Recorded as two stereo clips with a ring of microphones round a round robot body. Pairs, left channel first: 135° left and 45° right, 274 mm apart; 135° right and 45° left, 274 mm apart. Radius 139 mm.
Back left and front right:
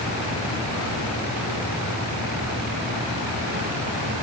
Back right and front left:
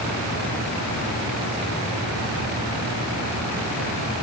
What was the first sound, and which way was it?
Only background noise.